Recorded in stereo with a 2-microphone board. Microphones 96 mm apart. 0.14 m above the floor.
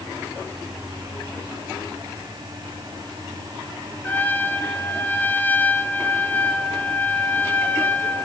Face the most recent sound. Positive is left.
turn(degrees=20)  # may be behind; listen again after turning